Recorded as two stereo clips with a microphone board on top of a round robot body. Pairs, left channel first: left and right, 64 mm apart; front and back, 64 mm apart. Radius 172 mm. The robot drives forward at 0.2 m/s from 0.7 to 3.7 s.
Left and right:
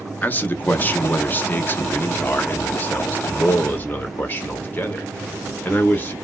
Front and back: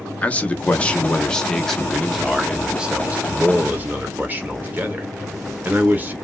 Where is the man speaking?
55° left, 0.9 m; by 6.2 s 135° left, 0.9 m.